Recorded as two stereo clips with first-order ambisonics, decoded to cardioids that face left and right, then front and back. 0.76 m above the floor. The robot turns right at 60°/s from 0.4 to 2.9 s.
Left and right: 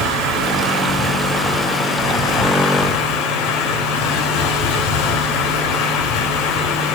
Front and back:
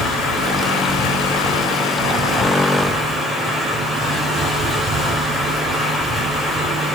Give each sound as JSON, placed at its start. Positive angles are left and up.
{"t": 0.0, "sound": "running water", "azimuth_deg": -55, "distance_m": 4.5}